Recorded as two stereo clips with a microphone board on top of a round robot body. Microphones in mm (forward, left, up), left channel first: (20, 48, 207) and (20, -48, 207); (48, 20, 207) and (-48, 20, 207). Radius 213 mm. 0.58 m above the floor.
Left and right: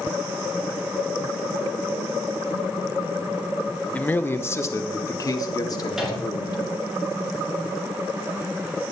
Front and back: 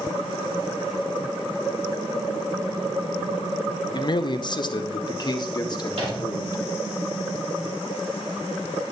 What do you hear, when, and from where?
3.9 s a man speaking: 15° left, 0.8 m; by 6.6 s 45° left, 1.9 m
5.9 s a microwave: 175° right, 3.5 m